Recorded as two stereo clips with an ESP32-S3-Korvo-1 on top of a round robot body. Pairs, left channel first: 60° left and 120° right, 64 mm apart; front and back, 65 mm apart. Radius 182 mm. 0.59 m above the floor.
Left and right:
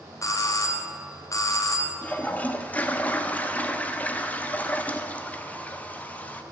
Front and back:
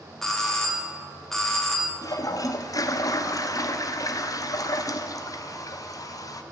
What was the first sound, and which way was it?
A doorbell, 85° left.